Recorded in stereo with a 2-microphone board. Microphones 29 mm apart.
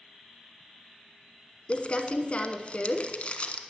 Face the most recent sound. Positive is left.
turn(degrees=40)  # may be behind; listen again after turning